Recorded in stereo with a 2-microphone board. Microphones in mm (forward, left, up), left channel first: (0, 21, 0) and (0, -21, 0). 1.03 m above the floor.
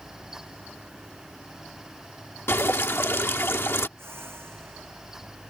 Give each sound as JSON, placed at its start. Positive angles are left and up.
{"t": 2.5, "sound": "dripping", "side_deg": 70}
{"t": 4.0, "sound": "a whoosh", "side_deg": -80}